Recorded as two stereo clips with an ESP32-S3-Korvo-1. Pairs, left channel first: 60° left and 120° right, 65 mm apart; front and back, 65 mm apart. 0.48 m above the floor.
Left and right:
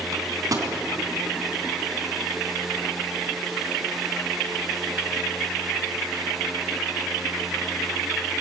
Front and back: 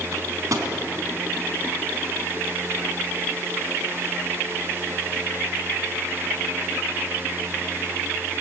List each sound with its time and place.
0.1 s a microwave: 145° right, 3.5 m